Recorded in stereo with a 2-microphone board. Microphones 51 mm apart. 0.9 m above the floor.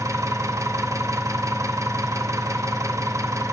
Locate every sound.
0.0 s an engine running: 70° right (ahead or behind), 0.8 m